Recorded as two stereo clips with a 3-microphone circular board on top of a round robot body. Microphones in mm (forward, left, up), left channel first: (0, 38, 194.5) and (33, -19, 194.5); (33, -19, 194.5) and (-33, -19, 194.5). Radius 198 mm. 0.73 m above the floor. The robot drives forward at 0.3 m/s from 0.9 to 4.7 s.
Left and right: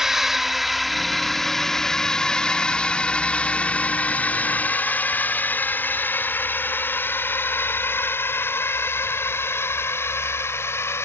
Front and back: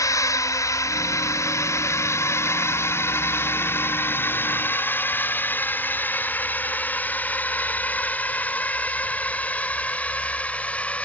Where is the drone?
25° left; by 11.1 s 70° left.